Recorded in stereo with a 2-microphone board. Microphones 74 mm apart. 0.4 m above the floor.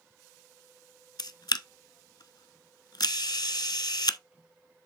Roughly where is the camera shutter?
Left.